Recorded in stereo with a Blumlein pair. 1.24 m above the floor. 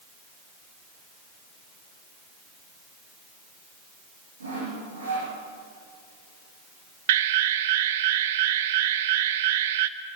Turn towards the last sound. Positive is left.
turn(degrees=-55)